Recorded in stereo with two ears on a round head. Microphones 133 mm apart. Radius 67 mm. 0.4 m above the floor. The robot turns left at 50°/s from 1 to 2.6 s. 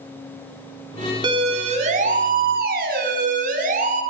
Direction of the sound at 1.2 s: 30° right (ahead or behind).